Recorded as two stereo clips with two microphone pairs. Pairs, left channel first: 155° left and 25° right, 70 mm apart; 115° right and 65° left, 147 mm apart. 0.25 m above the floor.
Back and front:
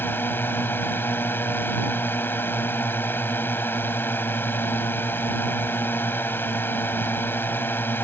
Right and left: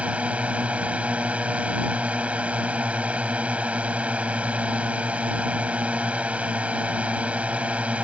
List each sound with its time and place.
0.0 s a drone: 140° left